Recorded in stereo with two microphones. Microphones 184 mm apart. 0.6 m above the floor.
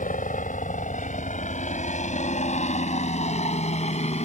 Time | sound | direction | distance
0.0 | a helicopter | 45° left (ahead or behind) | ?